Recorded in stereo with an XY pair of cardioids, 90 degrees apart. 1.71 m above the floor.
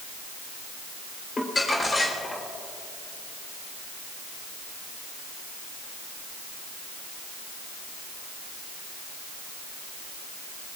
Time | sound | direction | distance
1.4 | crumpling | 30° left | 3.5 m